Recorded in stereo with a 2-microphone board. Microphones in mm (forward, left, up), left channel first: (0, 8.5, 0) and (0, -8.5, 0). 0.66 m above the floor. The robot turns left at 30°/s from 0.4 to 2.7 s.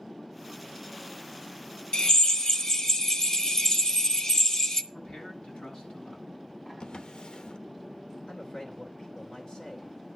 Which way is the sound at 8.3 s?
65° left (ahead or behind).